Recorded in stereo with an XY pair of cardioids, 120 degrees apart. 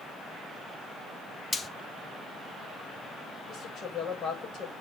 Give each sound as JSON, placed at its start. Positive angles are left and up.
{"t": 1.5, "sound": "frying", "azimuth_deg": 30, "distance_m": 1.2}
{"t": 3.5, "sound": "a woman speaking", "azimuth_deg": 50, "distance_m": 7.0}